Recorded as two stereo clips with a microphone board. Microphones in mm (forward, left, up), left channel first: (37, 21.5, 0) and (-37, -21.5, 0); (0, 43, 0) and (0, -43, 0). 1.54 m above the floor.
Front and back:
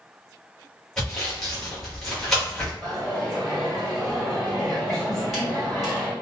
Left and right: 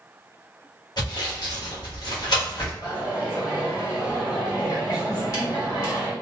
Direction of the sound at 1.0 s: 115° left.